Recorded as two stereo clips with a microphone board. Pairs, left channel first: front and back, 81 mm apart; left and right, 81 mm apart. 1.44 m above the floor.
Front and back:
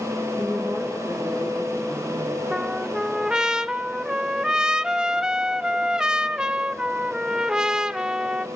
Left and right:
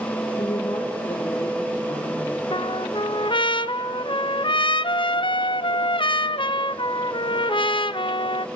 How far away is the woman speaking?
About 2 m.